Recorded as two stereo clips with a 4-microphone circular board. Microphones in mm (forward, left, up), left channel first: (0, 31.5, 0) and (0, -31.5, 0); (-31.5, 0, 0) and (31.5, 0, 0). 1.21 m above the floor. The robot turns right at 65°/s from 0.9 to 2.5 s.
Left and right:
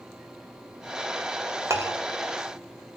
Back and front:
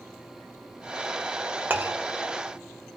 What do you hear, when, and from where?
1.7 s a clink: 55° right, 0.7 m; by 2.0 s 40° right, 0.7 m